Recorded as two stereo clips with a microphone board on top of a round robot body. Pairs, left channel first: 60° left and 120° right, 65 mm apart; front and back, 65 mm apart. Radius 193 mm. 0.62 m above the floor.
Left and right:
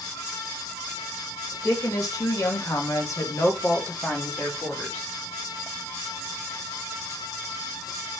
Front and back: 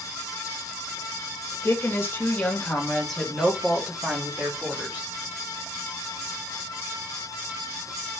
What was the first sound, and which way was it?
A woman speaking, 45° left.